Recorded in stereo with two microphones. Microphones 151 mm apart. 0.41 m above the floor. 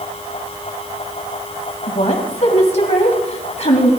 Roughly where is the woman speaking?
Left.